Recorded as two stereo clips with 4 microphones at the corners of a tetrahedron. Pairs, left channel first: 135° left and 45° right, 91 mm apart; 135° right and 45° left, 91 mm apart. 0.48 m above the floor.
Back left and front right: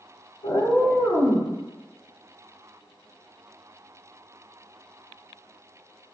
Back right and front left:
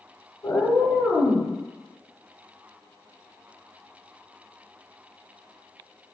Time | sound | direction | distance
0.4 | a cat meowing | 170° left | 0.6 m